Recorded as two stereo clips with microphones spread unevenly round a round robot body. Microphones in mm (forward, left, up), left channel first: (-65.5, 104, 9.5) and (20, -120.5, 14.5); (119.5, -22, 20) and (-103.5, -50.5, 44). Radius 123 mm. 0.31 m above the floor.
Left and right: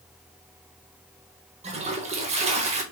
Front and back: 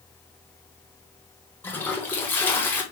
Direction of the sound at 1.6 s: 50° right.